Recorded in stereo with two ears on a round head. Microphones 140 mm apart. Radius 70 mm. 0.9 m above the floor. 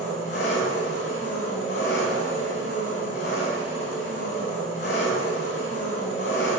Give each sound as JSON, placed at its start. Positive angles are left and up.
{"t": 0.0, "sound": "an engine running", "side_deg": 50, "distance_m": 6.0}